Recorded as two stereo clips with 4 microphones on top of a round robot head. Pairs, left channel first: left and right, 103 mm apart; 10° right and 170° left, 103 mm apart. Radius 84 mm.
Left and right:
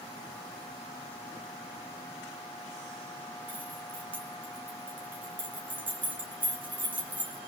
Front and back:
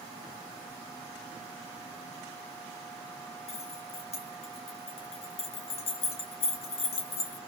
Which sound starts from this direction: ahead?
Keys jangling, at 3.5 s.